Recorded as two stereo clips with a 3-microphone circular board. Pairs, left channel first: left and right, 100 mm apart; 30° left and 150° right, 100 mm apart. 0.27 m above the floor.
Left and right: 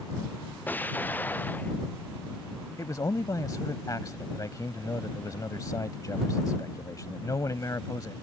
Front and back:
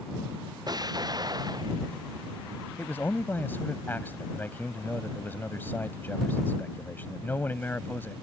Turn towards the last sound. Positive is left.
turn(degrees=85)